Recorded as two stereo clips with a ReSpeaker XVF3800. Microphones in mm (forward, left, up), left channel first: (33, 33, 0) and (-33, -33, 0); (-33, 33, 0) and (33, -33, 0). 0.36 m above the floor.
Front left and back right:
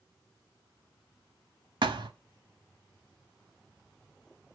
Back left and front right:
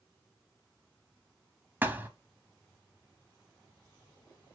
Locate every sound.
1.8 s a thud: 115° right, 0.7 m